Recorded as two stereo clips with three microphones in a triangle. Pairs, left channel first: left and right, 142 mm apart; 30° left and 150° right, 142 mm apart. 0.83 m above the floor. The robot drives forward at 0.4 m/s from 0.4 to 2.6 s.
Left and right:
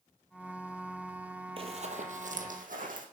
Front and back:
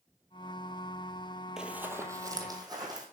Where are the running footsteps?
65° right, 1.1 m; by 3.0 s 90° right, 2.5 m.